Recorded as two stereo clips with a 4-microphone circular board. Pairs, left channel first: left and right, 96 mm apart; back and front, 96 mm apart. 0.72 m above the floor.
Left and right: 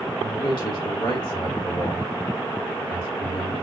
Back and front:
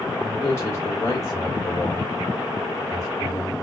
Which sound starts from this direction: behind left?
A man speaking, at 0.2 s.